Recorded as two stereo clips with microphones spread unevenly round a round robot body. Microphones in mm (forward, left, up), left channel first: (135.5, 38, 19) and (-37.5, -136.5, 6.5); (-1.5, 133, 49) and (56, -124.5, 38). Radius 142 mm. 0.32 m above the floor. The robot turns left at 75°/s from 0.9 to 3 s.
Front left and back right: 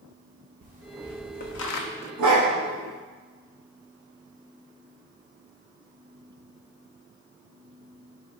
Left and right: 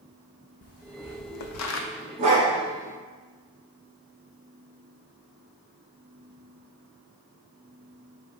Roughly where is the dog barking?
Behind right.